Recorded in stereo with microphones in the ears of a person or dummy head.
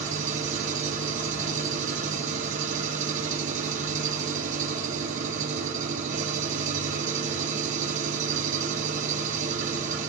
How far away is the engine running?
About 1.8 m.